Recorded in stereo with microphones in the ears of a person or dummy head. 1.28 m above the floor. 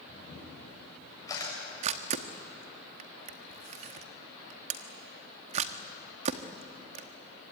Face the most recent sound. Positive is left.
turn(degrees=-40)  # may be behind; listen again after turning